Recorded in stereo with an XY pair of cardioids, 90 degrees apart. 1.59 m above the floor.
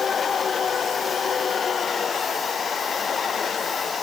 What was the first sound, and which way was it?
Only background noise.